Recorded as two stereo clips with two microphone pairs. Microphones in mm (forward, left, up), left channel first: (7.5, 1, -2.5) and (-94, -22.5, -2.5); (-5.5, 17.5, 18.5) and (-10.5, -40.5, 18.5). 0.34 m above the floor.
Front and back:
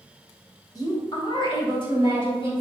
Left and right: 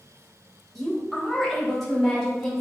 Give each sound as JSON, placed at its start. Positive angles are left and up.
{"t": 0.8, "sound": "a woman speaking", "azimuth_deg": 0, "distance_m": 1.6}